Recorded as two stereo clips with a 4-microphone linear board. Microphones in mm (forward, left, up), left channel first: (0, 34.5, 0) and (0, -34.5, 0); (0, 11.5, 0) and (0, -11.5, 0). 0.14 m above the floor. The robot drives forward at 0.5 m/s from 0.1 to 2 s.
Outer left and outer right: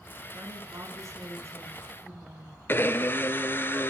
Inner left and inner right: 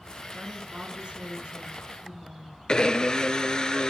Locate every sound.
0.3 s a woman speaking: 45° right (ahead or behind), 1.4 m; by 2.6 s 35° right (ahead or behind), 1.6 m
2.7 s a blender: 30° left (ahead or behind), 0.6 m